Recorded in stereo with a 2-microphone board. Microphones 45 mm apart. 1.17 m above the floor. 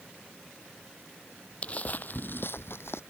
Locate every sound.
1.6 s footsteps: 25° left (ahead or behind); by 3.0 s 65° left (ahead or behind)